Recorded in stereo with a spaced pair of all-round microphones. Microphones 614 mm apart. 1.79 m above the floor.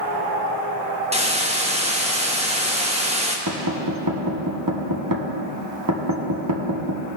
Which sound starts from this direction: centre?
A hiss, at 1.1 s.